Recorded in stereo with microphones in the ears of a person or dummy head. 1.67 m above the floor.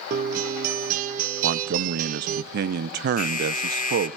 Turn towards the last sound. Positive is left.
turn(degrees=50)  # may be behind; listen again after turning